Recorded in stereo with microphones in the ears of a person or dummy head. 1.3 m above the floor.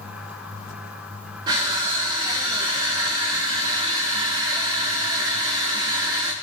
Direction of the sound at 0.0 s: 5° right (ahead or behind).